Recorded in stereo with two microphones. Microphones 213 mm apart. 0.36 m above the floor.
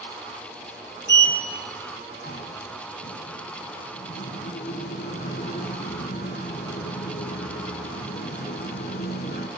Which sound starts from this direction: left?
A sliding door, at 1.1 s.